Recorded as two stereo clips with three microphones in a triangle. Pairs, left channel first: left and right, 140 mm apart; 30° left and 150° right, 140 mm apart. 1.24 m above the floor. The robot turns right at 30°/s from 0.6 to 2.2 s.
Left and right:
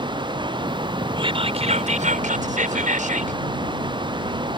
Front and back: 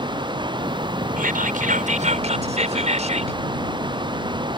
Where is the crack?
I don't hear a crack.